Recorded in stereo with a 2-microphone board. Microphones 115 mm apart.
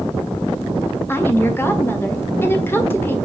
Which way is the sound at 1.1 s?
20° left (ahead or behind).